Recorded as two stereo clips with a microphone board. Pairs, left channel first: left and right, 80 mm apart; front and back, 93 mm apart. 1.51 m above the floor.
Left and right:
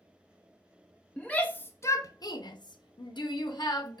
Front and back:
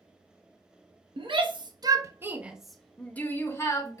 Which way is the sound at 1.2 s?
165° left.